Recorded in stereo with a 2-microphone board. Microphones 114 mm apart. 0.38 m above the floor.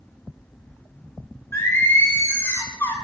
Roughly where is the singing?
Left.